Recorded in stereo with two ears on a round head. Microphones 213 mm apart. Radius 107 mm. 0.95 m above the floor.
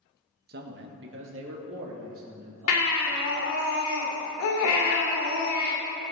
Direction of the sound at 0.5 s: 45° right (ahead or behind).